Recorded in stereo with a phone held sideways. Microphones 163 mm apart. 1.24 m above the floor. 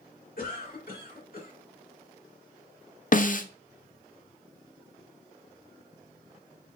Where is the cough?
65° left (ahead or behind), 2.0 m.